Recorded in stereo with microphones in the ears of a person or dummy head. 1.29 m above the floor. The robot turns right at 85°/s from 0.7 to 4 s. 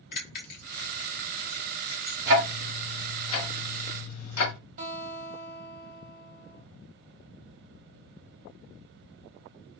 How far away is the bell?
About 1.1 m.